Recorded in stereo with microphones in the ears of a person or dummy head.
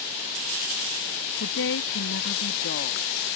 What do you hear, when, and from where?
1.4 s a woman speaking: 70° left (ahead or behind); by 3.3 s 45° left (ahead or behind)